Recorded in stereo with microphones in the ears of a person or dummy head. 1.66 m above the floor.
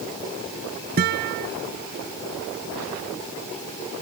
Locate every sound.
1.0 s a guitar: 55° right (ahead or behind)